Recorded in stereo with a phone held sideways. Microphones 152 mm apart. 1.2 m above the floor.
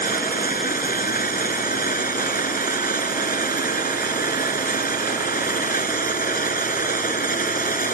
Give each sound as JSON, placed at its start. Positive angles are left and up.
{"t": 0.0, "sound": "a machine running", "side_deg": 65}